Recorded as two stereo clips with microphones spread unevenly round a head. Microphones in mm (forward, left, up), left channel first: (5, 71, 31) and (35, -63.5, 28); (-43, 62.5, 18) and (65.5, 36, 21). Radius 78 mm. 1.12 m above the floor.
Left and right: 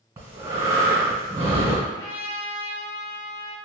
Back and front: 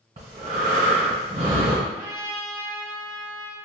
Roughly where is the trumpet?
Ahead left.